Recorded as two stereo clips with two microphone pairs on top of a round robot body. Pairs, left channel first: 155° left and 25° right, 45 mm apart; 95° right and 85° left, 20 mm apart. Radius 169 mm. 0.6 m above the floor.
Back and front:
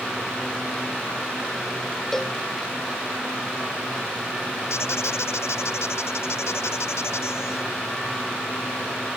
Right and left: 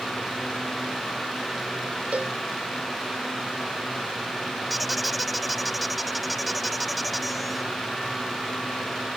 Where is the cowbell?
80° left.